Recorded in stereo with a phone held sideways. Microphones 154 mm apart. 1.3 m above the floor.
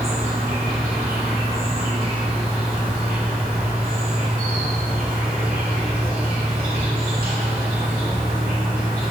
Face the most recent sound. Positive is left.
turn(degrees=-75)  # may be behind; listen again after turning